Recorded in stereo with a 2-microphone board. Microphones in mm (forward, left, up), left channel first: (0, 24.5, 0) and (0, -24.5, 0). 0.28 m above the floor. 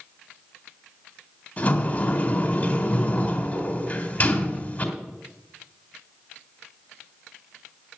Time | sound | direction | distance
1.6 | a sliding door | 35° left (ahead or behind) | 1.9 m